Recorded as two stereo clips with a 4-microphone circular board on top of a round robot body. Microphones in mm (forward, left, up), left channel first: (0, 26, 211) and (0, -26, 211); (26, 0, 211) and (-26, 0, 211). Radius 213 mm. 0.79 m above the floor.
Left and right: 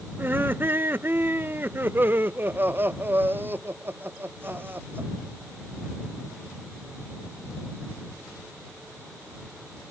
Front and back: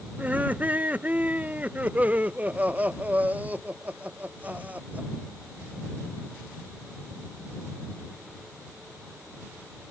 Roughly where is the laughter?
Behind right.